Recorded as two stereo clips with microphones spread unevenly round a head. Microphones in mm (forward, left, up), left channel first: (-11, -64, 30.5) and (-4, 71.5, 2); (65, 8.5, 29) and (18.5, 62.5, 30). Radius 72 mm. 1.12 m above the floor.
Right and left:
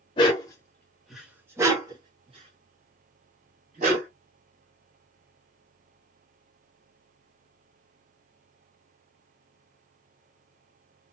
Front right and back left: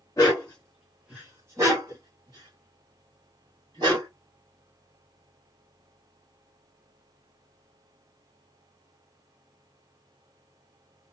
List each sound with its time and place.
0.2 s a dog barking: 110° right, 1.0 m; by 4.1 s 125° left, 2 m